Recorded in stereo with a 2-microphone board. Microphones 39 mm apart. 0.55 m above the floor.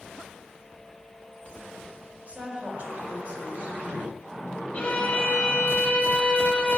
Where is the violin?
30° left (ahead or behind), 2.0 m.